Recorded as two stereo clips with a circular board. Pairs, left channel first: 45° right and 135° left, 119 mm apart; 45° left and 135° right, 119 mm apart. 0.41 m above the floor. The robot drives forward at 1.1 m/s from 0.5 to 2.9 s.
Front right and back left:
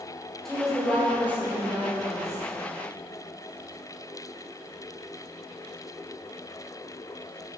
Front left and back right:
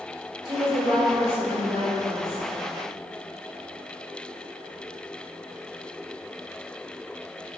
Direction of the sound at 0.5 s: 130° right.